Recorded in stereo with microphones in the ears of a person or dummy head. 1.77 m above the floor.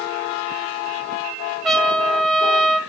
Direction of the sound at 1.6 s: 5° left (ahead or behind).